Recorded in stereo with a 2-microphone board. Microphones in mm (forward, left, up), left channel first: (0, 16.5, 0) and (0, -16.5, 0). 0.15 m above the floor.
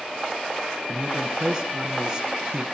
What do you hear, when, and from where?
0.9 s a man speaking: 20° right (ahead or behind), 1.2 m